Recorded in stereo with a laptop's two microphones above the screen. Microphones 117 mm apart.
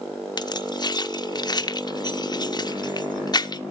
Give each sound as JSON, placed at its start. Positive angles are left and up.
{"t": 0.4, "sound": "keys jangling", "side_deg": 35, "distance_m": 0.6}